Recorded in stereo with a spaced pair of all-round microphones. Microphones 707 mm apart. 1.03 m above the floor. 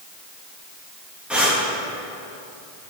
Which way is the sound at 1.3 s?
Centre (ahead or behind).